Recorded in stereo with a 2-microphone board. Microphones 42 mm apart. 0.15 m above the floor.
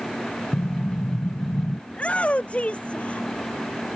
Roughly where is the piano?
I don't hear a piano.